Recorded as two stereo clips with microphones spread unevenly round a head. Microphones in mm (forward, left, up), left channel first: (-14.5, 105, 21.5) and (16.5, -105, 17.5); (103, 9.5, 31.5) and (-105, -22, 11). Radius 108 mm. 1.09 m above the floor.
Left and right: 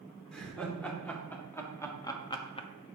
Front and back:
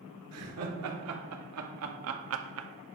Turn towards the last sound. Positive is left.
turn(degrees=160)